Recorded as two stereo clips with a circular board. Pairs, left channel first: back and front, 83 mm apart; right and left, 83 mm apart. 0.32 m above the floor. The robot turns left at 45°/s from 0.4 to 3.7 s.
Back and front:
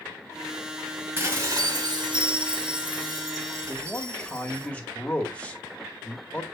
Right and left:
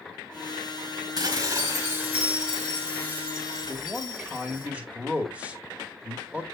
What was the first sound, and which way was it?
Dishes clattering, 65° left.